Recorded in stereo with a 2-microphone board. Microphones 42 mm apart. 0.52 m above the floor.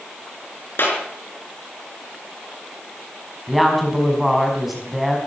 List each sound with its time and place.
0.8 s a clap: 55° left (ahead or behind), 5.5 m
3.5 s a woman speaking: 5° right (ahead or behind), 4.5 m